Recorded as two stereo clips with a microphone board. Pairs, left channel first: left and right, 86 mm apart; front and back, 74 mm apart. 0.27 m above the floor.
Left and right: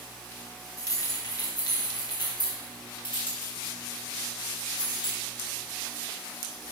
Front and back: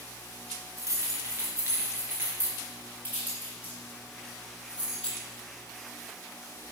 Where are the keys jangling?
140° left, 3 m; by 5.2 s 105° left, 6.5 m.